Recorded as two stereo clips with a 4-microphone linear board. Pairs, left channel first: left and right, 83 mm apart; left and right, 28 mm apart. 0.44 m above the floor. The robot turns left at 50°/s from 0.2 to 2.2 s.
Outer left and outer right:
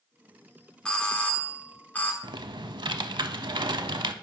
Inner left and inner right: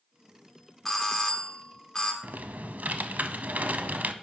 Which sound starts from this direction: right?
Typing on a keyboard, at 2.2 s.